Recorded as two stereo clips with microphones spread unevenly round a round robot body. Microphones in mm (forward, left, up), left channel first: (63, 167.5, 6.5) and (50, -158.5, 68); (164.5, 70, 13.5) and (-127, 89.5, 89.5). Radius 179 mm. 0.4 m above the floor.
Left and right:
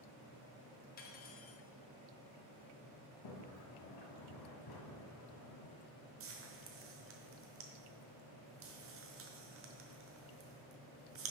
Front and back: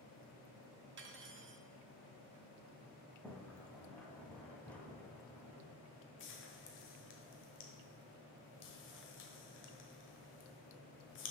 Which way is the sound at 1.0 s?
120° left.